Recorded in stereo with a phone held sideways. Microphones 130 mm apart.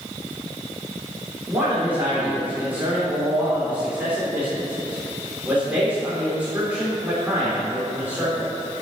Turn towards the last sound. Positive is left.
turn(degrees=-15)  # may be behind; listen again after turning